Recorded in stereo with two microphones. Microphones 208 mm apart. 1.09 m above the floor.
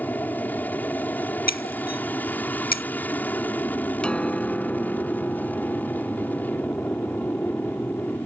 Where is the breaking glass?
45° left (ahead or behind).